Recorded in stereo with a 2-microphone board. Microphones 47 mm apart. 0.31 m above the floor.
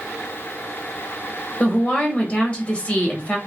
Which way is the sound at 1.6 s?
25° left (ahead or behind).